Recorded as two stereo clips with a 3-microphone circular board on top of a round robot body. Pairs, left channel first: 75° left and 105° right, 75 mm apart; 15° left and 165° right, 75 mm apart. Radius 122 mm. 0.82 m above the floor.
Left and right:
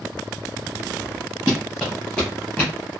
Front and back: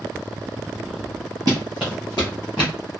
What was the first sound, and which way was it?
Running footsteps, 175° right.